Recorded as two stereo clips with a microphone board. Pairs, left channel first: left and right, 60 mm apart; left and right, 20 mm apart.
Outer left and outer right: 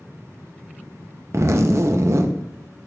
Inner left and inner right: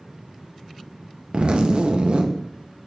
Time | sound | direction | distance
1.3 | a zipper | 45° right (ahead or behind) | 0.5 m